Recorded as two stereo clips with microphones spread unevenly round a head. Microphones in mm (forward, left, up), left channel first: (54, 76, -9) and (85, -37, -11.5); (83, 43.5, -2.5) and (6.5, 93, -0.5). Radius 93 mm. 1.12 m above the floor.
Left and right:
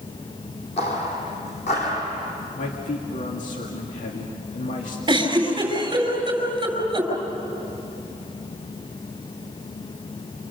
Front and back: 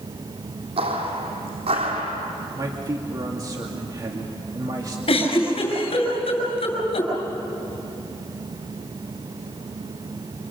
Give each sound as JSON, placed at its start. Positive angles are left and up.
{"t": 0.8, "sound": "footsteps", "azimuth_deg": 155, "distance_m": 3.5}
{"t": 2.6, "sound": "a man speaking", "azimuth_deg": 100, "distance_m": 2.5}
{"t": 5.1, "sound": "a giggle", "azimuth_deg": -25, "distance_m": 6.0}